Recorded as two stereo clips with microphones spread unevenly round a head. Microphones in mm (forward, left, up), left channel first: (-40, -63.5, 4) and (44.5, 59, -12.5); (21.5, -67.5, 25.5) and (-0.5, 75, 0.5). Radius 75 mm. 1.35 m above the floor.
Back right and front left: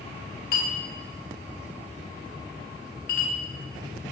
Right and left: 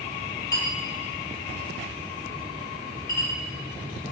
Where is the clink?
145° right, 0.9 m.